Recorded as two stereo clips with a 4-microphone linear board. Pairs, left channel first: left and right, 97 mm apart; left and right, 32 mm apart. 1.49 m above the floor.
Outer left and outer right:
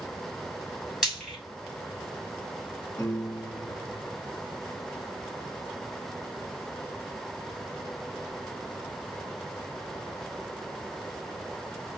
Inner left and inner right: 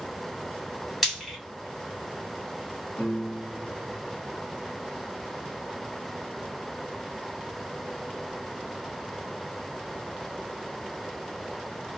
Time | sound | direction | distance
1.0 | frying | 5° right (ahead or behind) | 2.5 m
3.0 | a piano | 20° left (ahead or behind) | 1.1 m